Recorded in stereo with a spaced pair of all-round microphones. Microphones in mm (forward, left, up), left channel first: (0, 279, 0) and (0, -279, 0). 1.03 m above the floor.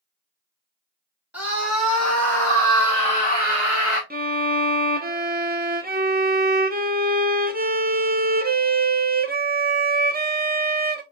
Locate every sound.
1.3 s a scream: 5° right (ahead or behind), 2.5 m; by 4.0 s 25° left (ahead or behind), 1.5 m
4.1 s a violin: 15° right (ahead or behind), 0.6 m